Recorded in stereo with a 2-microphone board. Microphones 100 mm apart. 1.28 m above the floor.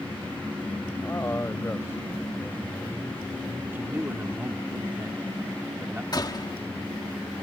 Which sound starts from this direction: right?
A man speaking, at 3.7 s.